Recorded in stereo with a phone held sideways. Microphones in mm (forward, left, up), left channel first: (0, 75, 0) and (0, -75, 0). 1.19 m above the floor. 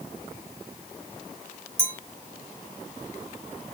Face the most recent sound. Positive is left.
turn(degrees=-15)  # may be behind; listen again after turning